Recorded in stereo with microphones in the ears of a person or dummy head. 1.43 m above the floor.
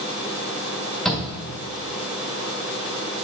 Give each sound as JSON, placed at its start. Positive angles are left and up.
{"t": 1.1, "sound": "a shout", "side_deg": 5, "distance_m": 1.6}